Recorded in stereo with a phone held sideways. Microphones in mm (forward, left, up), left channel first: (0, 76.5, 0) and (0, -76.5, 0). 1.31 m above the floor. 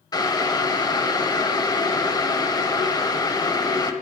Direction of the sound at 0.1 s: 30° left (ahead or behind).